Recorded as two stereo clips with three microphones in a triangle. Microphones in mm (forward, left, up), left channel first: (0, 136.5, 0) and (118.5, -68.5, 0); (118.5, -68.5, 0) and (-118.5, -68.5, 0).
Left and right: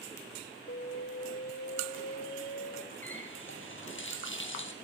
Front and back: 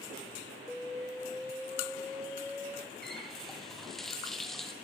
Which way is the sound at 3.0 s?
90° left.